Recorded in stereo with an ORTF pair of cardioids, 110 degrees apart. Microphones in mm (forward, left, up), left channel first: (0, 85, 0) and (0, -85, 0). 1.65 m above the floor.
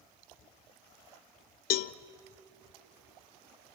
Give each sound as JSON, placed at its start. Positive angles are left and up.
{"t": 1.7, "sound": "a cowbell", "azimuth_deg": 60, "distance_m": 0.5}